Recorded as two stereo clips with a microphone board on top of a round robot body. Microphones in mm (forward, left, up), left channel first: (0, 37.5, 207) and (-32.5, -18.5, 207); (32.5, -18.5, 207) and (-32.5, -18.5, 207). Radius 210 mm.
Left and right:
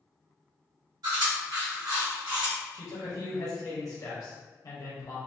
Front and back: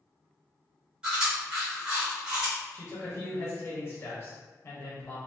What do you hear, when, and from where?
1.0 s chewing: 105° right, 1.2 m
2.7 s a man speaking: 45° left, 1.2 m